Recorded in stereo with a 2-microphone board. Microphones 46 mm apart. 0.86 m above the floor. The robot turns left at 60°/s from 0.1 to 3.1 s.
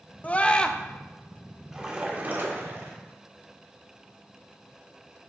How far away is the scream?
About 0.6 m.